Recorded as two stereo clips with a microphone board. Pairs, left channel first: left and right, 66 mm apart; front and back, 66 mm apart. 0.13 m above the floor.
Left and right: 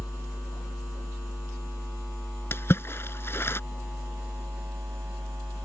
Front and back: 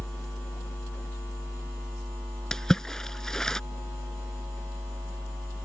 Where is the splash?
75° left.